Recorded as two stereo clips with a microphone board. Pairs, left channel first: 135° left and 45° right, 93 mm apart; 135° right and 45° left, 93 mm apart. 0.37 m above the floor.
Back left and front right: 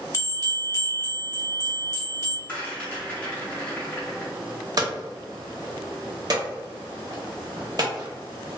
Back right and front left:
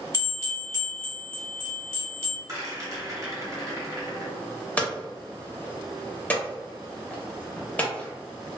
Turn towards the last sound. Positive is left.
turn(degrees=-65)